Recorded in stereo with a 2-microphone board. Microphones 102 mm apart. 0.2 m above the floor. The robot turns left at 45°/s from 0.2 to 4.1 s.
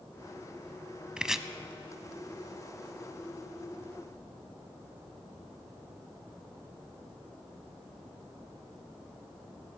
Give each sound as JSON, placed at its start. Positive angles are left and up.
{"t": 1.2, "sound": "chopping", "side_deg": -10, "distance_m": 0.6}